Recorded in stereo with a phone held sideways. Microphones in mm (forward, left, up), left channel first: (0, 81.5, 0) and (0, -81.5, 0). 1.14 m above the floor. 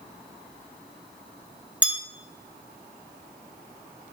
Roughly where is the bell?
Centre.